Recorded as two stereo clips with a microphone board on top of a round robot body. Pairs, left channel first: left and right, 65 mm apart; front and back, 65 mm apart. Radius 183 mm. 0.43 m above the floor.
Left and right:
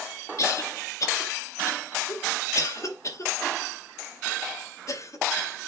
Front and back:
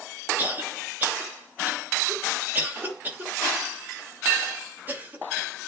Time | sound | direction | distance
0.4 | a cough | 120° left | 2.5 m